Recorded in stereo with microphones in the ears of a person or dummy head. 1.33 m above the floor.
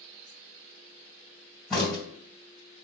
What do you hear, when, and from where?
1.7 s a crack: 5° left (ahead or behind), 2 m